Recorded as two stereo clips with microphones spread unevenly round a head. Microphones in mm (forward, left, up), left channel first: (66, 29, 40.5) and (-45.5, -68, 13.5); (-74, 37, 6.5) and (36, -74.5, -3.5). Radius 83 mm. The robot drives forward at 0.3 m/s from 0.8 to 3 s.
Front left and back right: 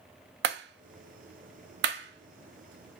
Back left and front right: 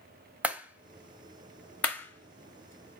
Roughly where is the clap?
Behind right.